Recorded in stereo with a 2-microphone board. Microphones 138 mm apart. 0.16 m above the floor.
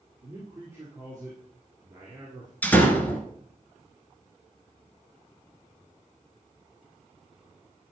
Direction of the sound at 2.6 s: 10° left (ahead or behind).